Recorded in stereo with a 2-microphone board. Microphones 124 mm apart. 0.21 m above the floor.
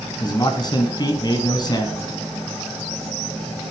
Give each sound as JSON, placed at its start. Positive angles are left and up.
{"t": 0.2, "sound": "a man speaking", "side_deg": 35, "distance_m": 1.9}